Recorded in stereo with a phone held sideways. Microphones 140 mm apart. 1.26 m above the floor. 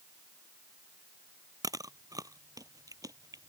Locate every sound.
1.6 s chewing: 25° right (ahead or behind)